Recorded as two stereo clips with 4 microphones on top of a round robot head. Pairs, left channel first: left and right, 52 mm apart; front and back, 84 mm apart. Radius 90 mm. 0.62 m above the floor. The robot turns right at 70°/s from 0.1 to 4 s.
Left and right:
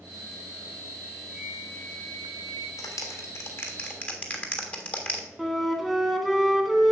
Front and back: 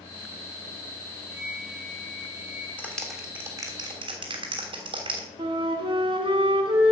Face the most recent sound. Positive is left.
turn(degrees=175)